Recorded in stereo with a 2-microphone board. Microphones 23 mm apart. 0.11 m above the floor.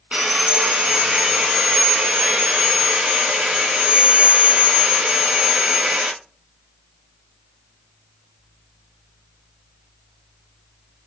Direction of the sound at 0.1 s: 70° right (ahead or behind).